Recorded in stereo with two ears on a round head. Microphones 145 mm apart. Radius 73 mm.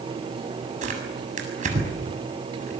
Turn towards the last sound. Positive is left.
turn(degrees=-50)  # may be behind; listen again after turning